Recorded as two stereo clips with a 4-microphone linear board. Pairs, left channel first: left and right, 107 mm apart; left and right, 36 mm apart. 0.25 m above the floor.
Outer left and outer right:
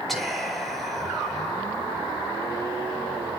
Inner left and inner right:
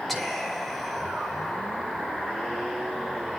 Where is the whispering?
Centre (ahead or behind), 4.5 m.